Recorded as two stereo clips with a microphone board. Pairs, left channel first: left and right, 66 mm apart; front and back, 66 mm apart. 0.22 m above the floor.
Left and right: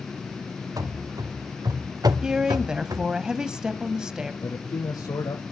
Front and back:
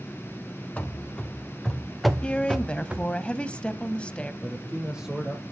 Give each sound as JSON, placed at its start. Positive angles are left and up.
{"t": 0.8, "sound": "running footsteps", "azimuth_deg": -70, "distance_m": 2.0}
{"t": 2.2, "sound": "a woman speaking", "azimuth_deg": -35, "distance_m": 1.0}
{"t": 4.4, "sound": "a man speaking", "azimuth_deg": 100, "distance_m": 8.0}